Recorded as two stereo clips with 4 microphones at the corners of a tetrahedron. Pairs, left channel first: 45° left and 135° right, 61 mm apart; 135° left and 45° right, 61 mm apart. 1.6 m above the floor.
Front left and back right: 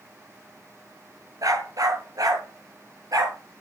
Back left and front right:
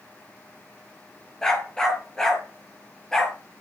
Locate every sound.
1.4 s a dog barking: 145° right, 7 m